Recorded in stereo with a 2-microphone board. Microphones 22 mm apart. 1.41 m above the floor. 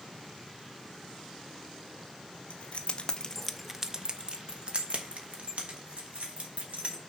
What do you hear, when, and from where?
2.5 s keys jangling: 65° left (ahead or behind), 0.9 m; by 7.0 s 70° right (ahead or behind), 2.5 m